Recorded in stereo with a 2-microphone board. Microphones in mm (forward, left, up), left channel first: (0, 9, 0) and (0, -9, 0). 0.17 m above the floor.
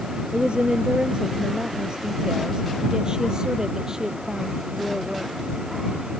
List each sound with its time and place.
0.3 s a woman speaking: 70° right (ahead or behind); by 5.3 s 30° right (ahead or behind)